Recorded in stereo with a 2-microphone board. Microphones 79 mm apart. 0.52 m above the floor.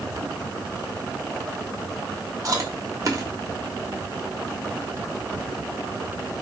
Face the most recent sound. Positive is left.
turn(degrees=-45)  # may be behind; listen again after turning